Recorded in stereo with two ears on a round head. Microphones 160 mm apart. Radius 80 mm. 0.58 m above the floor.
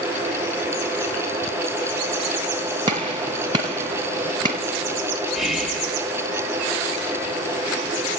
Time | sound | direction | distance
2.9 | a gunshot | 25° right (ahead or behind) | 1.1 m
5.3 | whispering | centre (ahead or behind) | 0.8 m